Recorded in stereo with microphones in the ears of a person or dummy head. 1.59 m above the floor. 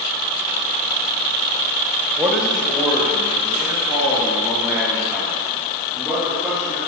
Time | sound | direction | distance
2.2 | a man speaking | 10° right (ahead or behind) | 1.4 m